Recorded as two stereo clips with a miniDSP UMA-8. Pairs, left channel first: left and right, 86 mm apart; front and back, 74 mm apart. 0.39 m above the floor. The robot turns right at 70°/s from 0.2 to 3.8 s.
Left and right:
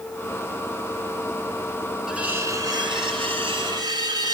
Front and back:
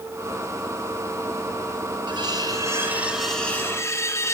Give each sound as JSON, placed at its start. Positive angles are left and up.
{"t": 2.1, "sound": "cutlery clinking", "azimuth_deg": -175, "distance_m": 2.5}